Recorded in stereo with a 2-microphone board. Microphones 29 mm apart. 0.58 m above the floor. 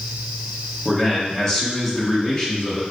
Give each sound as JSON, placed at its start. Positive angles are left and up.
{"t": 0.8, "sound": "a man speaking", "side_deg": 20, "distance_m": 1.1}